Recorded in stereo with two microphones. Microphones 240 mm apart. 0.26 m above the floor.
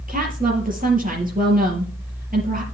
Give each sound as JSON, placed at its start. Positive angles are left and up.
{"t": 0.1, "sound": "a woman speaking", "side_deg": -35, "distance_m": 5.0}